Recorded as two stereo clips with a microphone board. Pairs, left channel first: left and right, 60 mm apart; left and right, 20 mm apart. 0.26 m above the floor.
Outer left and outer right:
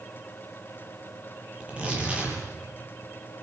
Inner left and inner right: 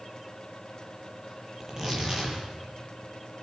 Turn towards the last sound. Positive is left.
turn(degrees=-20)  # may be behind; listen again after turning